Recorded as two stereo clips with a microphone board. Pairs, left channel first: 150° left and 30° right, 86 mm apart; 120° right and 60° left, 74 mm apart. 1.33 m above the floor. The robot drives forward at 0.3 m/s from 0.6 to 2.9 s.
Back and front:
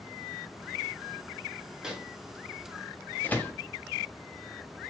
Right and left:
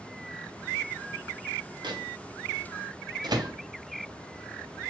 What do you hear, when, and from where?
1.8 s a microwave: 50° left, 0.7 m; by 3.5 s 80° left, 0.5 m